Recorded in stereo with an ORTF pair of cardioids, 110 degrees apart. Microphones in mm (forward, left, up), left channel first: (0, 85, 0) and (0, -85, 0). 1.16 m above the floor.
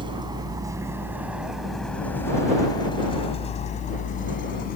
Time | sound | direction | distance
0.0 | a vehicle | 30° right | ?